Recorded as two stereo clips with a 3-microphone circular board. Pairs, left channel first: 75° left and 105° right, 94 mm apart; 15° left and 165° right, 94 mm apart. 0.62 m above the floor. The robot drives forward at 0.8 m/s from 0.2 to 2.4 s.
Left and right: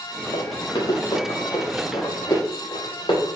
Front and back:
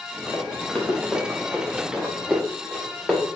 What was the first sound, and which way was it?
Running footsteps, 90° left.